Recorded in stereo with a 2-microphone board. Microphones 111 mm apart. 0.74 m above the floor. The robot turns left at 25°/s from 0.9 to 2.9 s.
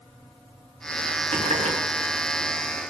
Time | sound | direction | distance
1.3 | a running tap | 85° right | 6 m